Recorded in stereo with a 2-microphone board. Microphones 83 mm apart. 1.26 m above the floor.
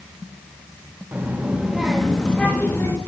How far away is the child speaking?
About 1.4 m.